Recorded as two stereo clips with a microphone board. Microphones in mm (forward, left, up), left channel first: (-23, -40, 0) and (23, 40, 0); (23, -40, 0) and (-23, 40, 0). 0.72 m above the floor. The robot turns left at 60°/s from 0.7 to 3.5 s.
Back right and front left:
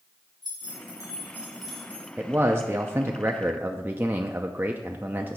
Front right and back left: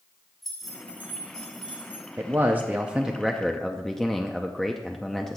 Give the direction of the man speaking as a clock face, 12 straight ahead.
9 o'clock.